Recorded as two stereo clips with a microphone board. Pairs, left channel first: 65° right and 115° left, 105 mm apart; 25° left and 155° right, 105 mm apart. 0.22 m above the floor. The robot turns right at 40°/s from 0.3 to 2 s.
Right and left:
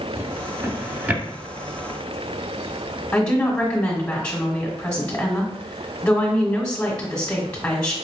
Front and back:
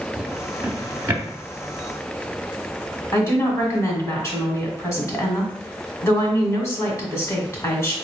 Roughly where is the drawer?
Behind left.